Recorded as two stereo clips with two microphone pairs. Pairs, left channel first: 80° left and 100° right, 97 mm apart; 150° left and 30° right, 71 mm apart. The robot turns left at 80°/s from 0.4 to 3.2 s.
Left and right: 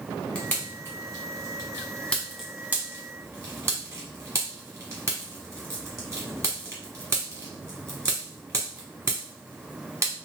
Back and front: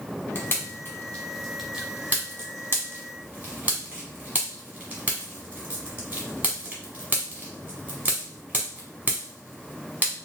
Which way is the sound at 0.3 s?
150° left.